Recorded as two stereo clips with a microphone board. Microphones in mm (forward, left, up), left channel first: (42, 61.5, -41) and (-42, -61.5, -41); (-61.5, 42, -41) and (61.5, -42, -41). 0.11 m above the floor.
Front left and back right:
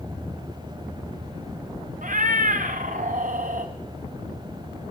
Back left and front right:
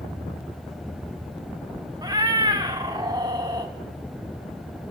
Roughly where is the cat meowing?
Right.